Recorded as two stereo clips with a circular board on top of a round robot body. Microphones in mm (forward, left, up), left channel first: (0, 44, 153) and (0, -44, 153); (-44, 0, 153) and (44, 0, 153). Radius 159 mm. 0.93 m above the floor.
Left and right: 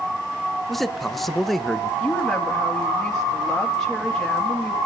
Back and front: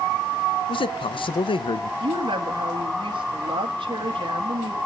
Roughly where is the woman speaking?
Ahead.